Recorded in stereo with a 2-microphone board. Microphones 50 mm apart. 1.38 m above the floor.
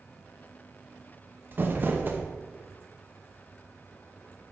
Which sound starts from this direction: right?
Crumpling, at 1.5 s.